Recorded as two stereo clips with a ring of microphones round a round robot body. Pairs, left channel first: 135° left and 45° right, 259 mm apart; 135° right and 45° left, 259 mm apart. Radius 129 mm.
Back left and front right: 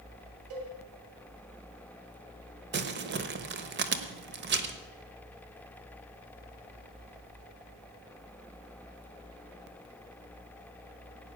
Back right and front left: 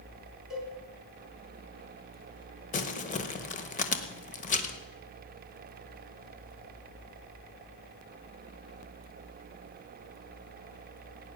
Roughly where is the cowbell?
Ahead right.